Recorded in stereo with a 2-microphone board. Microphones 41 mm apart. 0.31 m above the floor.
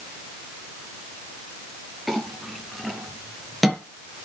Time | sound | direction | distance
2.1 | a clink | 5° right (ahead or behind) | 3.5 m